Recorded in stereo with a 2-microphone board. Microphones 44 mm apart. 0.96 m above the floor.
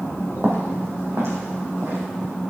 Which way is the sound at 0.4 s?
55° right (ahead or behind).